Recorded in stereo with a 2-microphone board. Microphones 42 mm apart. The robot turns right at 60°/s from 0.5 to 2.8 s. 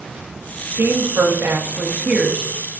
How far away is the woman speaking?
About 1.9 m.